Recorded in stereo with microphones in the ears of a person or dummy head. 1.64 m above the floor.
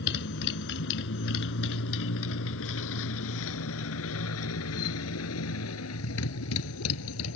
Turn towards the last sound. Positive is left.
turn(degrees=80)